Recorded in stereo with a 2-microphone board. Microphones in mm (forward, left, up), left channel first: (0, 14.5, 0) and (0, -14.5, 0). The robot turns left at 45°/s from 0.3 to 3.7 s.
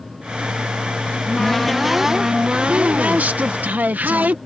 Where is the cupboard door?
30° left; by 4.4 s 90° right.